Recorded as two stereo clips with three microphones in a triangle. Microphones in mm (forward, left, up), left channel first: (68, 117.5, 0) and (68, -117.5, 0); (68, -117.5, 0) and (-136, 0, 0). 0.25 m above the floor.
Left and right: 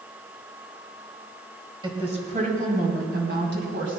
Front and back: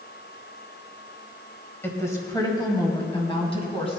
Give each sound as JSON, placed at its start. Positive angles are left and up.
{"t": 1.8, "sound": "a woman speaking", "azimuth_deg": -90, "distance_m": 1.6}